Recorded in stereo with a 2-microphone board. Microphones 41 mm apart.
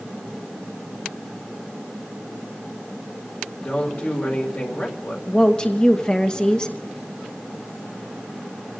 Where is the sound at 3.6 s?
50° left (ahead or behind), 2.5 m.